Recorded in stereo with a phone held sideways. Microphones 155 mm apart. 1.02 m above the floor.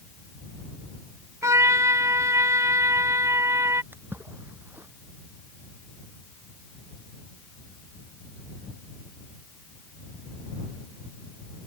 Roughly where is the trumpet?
Right.